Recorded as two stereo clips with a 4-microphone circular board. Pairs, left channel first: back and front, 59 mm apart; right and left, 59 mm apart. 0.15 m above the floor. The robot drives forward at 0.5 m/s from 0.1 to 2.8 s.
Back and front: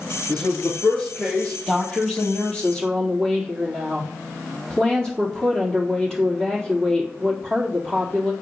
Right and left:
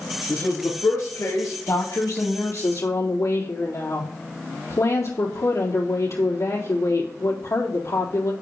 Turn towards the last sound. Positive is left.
turn(degrees=-105)